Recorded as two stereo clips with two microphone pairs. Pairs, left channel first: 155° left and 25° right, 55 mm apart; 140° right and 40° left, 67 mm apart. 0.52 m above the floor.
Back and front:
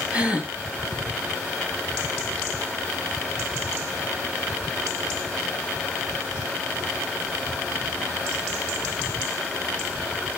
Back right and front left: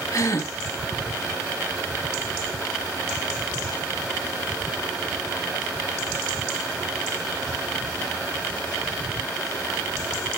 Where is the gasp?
100° right, 1.2 m.